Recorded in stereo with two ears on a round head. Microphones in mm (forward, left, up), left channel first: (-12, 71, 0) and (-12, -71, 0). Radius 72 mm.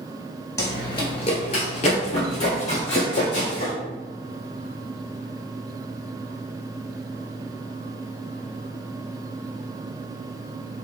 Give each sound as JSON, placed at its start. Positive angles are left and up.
{"t": 0.6, "sound": "running footsteps", "side_deg": 25, "distance_m": 1.0}